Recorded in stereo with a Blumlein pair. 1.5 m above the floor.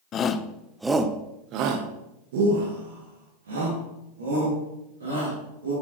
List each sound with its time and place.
0.1 s a shout: 30° left, 0.7 m; by 5.7 s 75° right, 3 m